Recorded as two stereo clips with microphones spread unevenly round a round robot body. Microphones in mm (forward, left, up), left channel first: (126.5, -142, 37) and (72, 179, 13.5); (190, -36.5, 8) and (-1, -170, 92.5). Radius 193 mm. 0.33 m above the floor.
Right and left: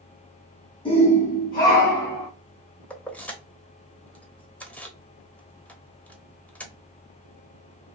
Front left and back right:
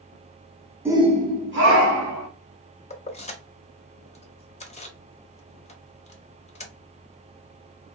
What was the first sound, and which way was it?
A shout, 25° right.